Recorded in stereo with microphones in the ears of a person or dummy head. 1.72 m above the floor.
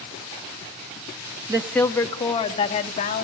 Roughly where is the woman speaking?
Centre.